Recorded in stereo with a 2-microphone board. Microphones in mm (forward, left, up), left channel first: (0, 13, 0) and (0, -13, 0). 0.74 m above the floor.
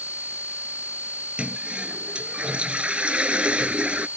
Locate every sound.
1.4 s a toilet flushing: 40° right (ahead or behind)